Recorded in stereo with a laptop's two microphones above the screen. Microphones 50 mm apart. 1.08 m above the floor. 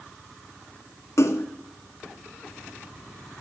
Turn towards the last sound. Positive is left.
turn(degrees=75)  # may be behind; listen again after turning